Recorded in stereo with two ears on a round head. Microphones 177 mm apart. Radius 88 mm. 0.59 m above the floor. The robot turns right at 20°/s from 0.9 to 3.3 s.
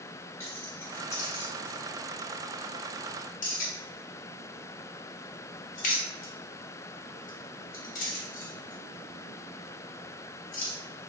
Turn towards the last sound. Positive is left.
turn(degrees=40)  # may be behind; listen again after turning